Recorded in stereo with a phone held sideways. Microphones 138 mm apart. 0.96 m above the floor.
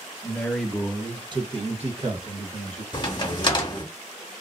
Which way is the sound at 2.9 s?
35° left (ahead or behind).